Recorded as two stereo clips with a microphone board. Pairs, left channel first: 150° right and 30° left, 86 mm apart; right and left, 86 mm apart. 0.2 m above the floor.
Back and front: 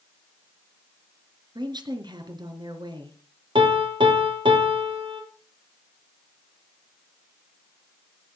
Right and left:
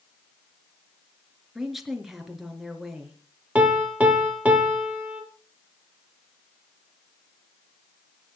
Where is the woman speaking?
5° left, 3.5 m.